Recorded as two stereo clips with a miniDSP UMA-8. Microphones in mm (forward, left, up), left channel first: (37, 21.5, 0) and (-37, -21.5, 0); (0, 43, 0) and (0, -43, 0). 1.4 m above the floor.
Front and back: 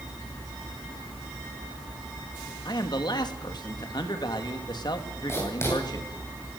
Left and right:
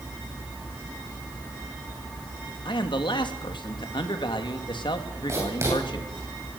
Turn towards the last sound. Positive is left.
turn(degrees=-30)